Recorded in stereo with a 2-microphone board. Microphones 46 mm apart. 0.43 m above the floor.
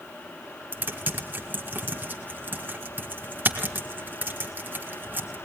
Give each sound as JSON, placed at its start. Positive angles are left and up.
{"t": 0.7, "sound": "typing on a keyboard", "side_deg": -45, "distance_m": 2.5}